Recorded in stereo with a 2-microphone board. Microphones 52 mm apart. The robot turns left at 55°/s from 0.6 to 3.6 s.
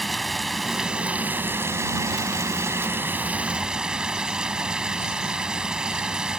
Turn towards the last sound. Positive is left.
turn(degrees=-165)